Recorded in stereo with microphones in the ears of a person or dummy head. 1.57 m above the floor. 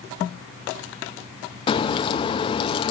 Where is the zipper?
No zipper in this recording.